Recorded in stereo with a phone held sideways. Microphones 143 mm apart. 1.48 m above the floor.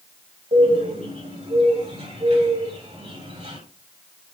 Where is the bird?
50° right (ahead or behind), 3 m.